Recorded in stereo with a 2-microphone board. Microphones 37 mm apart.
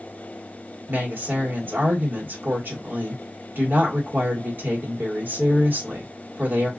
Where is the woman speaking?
70° right (ahead or behind), 1.3 m.